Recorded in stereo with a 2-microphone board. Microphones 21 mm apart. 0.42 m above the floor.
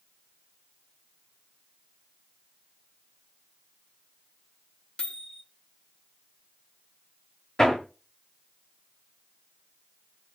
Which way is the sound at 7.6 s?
30° left (ahead or behind).